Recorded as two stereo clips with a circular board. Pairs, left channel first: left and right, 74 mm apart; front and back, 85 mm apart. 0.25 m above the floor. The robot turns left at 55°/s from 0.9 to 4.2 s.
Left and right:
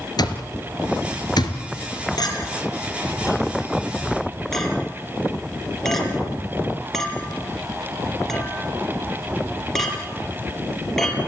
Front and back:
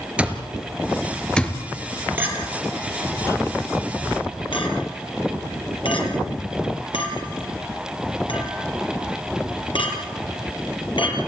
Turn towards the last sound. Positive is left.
turn(degrees=5)